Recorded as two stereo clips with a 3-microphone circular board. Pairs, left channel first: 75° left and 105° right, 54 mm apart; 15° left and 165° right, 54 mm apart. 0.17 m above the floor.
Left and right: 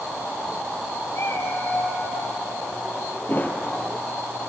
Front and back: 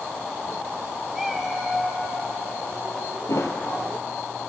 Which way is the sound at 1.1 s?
110° left.